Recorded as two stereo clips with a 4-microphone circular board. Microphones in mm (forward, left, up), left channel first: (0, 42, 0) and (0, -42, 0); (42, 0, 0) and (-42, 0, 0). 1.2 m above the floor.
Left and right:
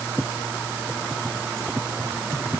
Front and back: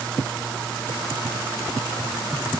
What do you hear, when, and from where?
Only background noise.